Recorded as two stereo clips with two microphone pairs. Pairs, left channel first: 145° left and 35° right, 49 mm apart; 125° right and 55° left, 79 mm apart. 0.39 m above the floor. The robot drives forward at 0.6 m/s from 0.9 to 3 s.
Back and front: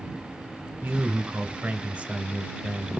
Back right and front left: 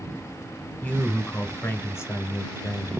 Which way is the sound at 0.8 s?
65° right.